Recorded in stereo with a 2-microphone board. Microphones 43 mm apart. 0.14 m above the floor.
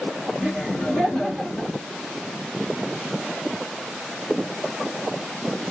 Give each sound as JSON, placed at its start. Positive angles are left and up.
{"t": 0.4, "sound": "laughter", "side_deg": 20, "distance_m": 1.5}